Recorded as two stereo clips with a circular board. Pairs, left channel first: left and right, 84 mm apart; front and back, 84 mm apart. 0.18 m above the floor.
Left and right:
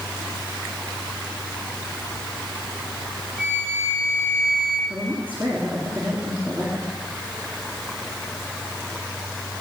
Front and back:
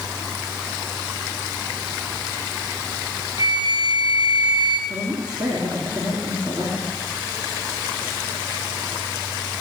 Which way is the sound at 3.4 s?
165° left.